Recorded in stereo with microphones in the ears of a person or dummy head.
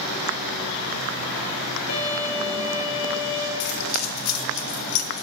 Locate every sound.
1.9 s a violin: 45° left (ahead or behind), 2 m
3.6 s keys jangling: 85° left, 0.6 m